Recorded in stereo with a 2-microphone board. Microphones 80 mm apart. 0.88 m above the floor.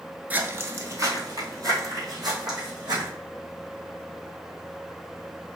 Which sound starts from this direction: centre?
Footsteps, at 0.3 s.